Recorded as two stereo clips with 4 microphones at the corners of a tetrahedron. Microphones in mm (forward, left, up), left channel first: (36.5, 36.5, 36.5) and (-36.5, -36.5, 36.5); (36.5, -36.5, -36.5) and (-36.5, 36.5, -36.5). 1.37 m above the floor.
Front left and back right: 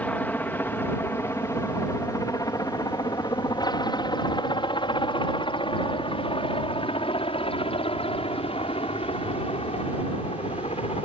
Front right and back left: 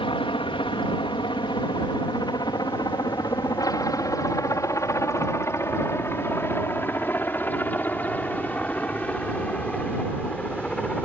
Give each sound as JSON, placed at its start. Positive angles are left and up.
{"t": 0.0, "sound": "a helicopter", "azimuth_deg": -30}